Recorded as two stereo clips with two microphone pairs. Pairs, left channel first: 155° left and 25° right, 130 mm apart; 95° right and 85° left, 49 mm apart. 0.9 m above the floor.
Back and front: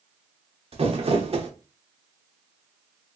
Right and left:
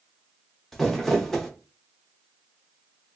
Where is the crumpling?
15° right, 0.6 m.